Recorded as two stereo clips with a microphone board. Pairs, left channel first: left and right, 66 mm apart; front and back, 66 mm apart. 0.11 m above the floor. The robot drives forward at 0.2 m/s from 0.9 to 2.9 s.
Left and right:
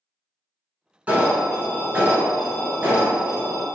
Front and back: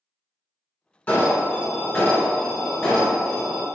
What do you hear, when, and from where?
1.1 s an alarm: 50° right, 1.5 m; by 3.7 s 75° right, 1.4 m